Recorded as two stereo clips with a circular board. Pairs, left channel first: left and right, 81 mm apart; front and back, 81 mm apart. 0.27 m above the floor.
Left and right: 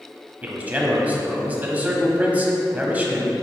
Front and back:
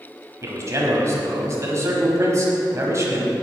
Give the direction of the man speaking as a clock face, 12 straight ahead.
5 o'clock.